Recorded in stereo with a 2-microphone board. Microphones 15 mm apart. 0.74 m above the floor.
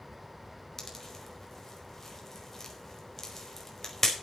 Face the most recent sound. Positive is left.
turn(degrees=20)  # may be behind; listen again after turning